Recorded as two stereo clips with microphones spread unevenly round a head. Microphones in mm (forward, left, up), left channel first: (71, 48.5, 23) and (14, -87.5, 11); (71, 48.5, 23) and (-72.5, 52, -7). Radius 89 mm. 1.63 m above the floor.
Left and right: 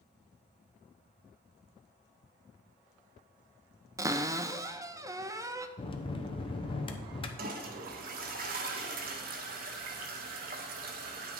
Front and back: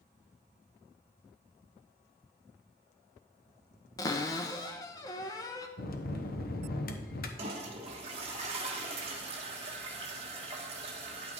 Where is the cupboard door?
45° right, 0.6 m.